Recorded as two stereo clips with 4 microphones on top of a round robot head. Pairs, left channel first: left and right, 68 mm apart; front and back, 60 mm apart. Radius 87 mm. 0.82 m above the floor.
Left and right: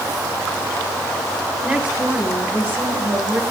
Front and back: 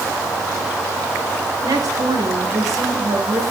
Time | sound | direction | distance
1.6 | a woman speaking | 165° right | 4.5 m